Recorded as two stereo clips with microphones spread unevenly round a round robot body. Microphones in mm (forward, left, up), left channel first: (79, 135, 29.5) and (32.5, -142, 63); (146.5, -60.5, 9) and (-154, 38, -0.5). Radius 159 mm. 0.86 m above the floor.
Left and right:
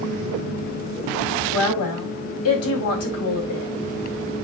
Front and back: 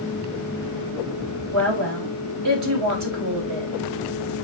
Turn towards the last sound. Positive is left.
turn(degrees=125)